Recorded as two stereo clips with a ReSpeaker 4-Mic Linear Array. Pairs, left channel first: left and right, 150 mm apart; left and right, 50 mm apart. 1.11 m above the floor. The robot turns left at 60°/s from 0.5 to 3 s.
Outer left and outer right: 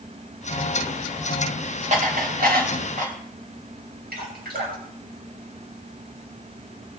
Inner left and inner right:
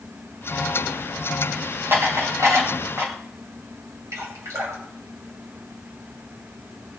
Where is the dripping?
85° right, 6 m.